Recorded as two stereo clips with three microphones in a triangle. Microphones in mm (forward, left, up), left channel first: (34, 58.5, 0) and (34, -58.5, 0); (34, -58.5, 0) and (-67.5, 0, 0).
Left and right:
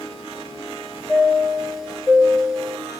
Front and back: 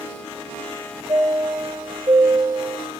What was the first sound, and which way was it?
A chime, 175° right.